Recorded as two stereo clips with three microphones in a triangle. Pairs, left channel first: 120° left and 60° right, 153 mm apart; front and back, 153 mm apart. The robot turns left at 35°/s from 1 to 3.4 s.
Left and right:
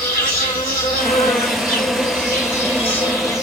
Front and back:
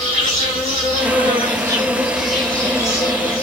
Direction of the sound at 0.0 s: 135° left.